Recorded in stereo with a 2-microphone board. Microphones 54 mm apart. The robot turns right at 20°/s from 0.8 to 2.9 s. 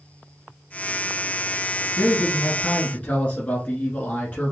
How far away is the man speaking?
About 1.3 m.